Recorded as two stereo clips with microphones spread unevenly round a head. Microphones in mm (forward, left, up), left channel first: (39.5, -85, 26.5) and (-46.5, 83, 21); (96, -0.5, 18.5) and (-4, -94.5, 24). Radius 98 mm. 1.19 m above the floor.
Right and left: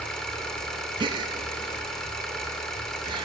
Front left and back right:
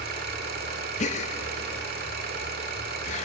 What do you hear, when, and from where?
0.0 s an engine running: 150° right, 2 m
1.0 s a gasp: 55° left, 0.5 m